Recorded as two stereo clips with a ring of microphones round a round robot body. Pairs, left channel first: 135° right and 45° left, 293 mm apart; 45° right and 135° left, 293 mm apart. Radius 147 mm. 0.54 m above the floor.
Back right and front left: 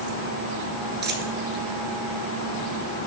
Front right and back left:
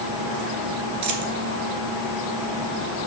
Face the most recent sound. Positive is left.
turn(degrees=100)